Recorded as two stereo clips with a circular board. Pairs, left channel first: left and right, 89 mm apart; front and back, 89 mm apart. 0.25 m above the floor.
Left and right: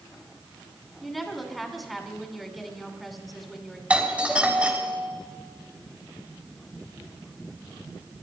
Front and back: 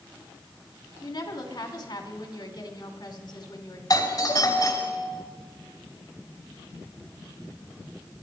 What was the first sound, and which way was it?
A woman speaking, straight ahead.